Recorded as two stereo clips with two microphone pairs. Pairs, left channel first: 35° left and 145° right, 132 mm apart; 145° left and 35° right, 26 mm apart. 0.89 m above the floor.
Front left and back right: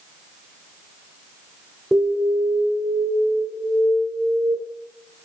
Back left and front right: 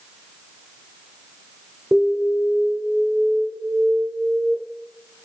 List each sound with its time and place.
1.9 s an alarm: 60° right, 1.9 m